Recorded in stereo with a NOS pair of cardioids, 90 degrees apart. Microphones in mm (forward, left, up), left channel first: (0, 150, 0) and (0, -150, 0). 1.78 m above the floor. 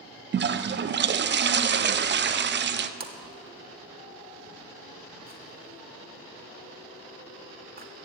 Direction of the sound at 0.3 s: 35° right.